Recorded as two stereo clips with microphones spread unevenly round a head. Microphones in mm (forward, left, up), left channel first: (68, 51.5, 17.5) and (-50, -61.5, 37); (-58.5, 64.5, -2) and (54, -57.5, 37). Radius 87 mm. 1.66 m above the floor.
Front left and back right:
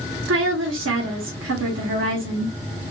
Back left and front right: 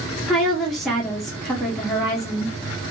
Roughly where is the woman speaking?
Behind right.